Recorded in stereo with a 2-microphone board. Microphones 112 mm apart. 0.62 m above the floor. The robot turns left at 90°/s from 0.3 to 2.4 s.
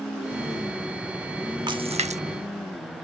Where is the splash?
40° right (ahead or behind); by 2.2 s 80° right.